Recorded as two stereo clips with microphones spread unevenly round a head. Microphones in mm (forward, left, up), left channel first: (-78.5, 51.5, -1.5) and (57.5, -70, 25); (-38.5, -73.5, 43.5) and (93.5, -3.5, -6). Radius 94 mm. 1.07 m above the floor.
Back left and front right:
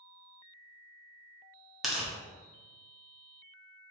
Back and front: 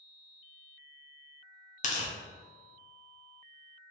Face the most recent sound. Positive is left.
turn(degrees=-125)